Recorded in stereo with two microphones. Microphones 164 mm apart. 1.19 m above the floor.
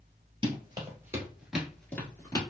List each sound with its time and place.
0.4 s running footsteps: 30° right (ahead or behind), 1.7 m; by 2.4 s 25° left (ahead or behind), 1.3 m